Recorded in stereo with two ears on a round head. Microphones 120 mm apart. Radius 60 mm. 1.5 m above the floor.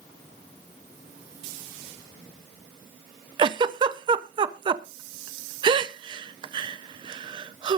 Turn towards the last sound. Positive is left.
turn(degrees=-35)  # may be behind; listen again after turning